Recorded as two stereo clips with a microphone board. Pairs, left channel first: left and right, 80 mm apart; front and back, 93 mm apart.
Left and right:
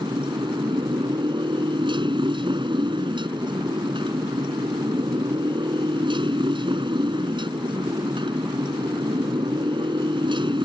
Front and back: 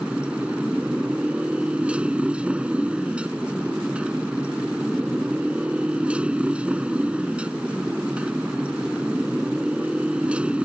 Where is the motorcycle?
100° right.